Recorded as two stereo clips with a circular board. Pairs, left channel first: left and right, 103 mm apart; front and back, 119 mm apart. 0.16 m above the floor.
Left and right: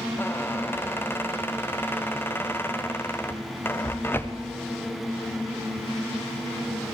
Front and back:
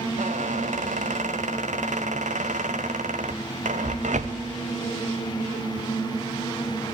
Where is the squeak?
160° left, 2.0 m.